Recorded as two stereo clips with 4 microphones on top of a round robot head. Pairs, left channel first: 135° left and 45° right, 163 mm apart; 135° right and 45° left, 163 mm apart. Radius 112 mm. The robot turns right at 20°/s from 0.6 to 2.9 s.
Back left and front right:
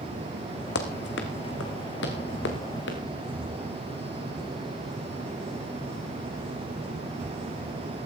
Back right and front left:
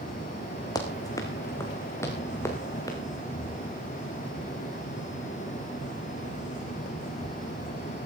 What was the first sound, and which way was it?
Running footsteps, 155° left.